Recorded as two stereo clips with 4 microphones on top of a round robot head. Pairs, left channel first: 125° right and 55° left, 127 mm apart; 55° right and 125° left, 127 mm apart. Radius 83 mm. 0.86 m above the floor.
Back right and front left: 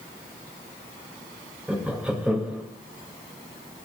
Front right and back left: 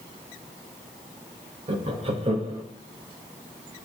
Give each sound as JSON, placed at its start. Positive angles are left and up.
{"t": 1.7, "sound": "laughter", "azimuth_deg": 135, "distance_m": 0.8}